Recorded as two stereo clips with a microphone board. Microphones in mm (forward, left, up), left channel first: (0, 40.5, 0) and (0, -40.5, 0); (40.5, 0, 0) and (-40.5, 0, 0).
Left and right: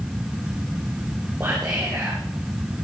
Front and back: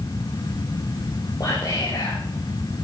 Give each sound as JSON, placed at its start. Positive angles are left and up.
{"t": 1.4, "sound": "whispering", "azimuth_deg": -30, "distance_m": 3.5}